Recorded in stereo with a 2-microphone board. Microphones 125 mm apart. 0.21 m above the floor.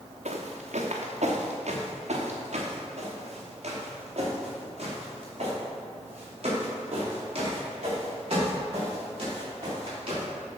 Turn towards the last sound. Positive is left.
turn(degrees=-50)  # may be behind; listen again after turning